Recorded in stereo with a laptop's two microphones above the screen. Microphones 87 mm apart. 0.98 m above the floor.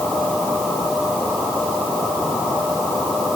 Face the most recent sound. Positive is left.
No sound to turn to.